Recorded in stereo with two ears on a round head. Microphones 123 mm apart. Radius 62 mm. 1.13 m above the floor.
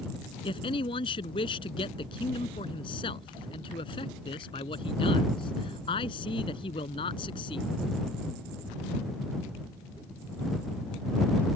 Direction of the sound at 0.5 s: 35° left (ahead or behind).